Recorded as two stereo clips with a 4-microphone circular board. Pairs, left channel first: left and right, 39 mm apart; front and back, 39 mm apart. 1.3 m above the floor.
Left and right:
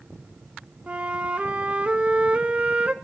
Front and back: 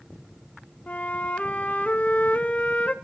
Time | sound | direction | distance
0.9 | a flute | 40° right | 0.5 m